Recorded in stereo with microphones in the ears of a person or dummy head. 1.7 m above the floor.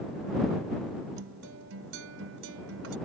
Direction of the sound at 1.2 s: 80° right.